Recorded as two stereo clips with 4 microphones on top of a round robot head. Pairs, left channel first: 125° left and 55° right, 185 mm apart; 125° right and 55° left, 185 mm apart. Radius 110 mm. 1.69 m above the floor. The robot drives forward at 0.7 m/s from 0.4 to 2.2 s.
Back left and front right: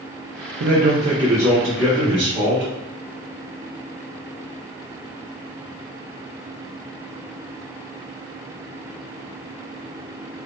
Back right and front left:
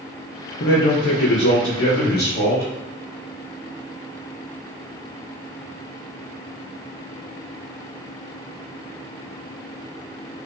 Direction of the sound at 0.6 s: 85° right.